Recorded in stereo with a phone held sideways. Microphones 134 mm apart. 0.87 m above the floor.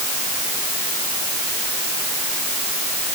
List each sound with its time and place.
Only background noise.